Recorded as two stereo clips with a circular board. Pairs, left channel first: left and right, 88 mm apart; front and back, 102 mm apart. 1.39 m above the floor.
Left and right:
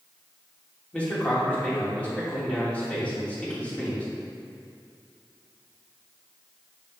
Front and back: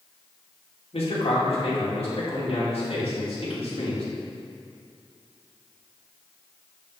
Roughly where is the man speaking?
Ahead.